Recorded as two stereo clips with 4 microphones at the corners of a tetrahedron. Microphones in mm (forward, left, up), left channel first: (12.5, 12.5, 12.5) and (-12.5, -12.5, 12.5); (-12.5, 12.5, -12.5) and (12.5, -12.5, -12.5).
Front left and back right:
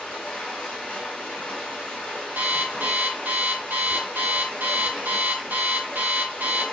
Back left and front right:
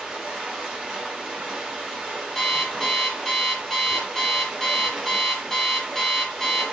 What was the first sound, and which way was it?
Running water, 15° left.